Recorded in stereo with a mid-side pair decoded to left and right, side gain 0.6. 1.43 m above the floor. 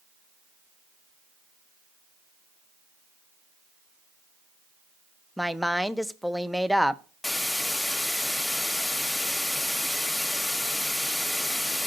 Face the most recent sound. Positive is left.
turn(degrees=10)